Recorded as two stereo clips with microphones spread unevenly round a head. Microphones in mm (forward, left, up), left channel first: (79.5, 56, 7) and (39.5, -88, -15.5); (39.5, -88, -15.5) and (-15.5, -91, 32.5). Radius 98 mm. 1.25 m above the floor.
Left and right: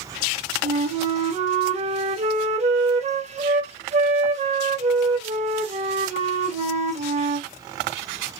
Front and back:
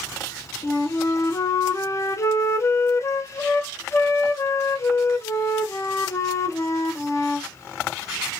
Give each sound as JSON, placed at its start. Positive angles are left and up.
{"t": 0.6, "sound": "a flute", "azimuth_deg": -60, "distance_m": 0.7}